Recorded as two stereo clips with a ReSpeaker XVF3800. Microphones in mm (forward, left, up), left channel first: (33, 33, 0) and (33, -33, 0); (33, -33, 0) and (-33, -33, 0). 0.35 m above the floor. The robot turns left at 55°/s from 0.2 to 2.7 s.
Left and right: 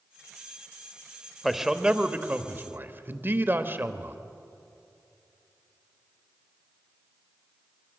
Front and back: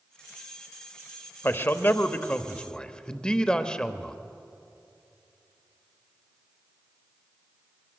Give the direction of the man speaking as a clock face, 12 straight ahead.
12 o'clock.